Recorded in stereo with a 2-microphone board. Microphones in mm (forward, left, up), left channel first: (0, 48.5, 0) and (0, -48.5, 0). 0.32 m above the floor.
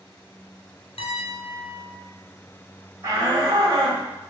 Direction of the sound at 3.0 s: 30° right (ahead or behind).